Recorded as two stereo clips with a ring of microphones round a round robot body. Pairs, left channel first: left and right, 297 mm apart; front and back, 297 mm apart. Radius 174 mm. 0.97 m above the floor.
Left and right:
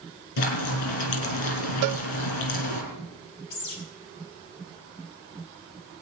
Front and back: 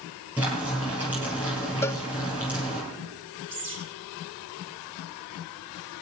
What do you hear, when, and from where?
0.4 s frying: 95° left, 4.5 m
1.8 s a cowbell: 80° right, 0.6 m
3.5 s a bird: 125° left, 5 m